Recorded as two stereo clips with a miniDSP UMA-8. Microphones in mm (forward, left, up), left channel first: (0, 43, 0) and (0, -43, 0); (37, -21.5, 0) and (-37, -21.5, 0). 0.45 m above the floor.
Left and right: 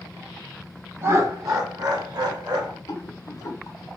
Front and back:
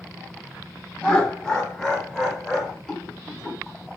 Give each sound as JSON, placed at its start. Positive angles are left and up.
{"t": 1.0, "sound": "laughter", "azimuth_deg": -70, "distance_m": 0.9}
{"t": 2.9, "sound": "a rattle", "azimuth_deg": 80, "distance_m": 1.0}